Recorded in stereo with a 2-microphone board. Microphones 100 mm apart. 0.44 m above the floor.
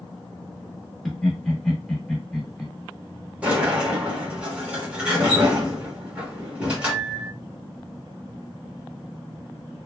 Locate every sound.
1.1 s laughter: 5° left (ahead or behind), 1.2 m
3.4 s a sliding door: 10° right (ahead or behind), 1.1 m